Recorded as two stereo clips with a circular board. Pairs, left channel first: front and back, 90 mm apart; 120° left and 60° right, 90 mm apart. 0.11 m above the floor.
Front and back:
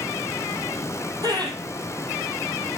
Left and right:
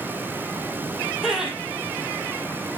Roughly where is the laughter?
Behind right.